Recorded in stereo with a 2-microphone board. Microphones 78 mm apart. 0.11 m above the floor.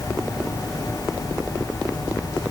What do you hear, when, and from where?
Only background noise.